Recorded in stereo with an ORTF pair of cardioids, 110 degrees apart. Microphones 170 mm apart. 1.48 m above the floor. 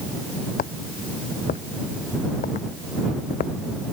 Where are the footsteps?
55° left.